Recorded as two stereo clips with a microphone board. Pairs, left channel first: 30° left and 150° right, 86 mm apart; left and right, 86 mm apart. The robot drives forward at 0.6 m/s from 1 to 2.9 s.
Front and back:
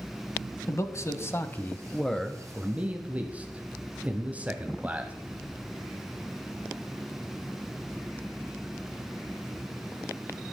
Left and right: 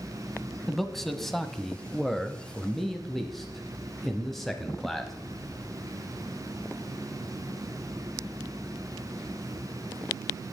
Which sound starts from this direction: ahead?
A man speaking, at 0.7 s.